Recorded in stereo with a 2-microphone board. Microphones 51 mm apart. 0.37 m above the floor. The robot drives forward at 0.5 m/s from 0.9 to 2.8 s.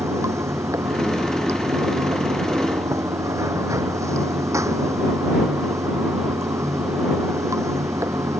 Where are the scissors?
I don't hear scissors.